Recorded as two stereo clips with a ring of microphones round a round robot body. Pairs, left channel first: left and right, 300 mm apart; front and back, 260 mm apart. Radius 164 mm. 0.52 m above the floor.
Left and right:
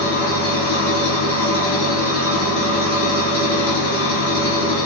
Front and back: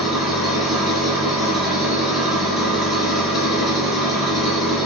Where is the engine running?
90° left, 1.2 m.